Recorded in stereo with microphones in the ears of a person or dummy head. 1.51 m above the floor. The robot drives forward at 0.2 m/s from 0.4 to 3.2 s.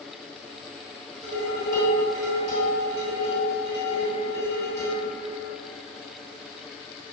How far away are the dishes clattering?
About 1.1 m.